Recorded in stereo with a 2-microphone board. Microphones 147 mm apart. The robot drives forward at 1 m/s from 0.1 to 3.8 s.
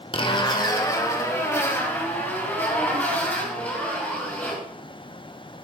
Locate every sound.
0.1 s a zipper: 35° left (ahead or behind), 1.2 m; by 4.6 s 10° left (ahead or behind), 4.5 m